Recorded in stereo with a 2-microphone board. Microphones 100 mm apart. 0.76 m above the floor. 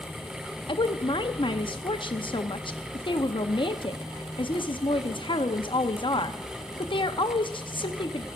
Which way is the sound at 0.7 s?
60° left (ahead or behind).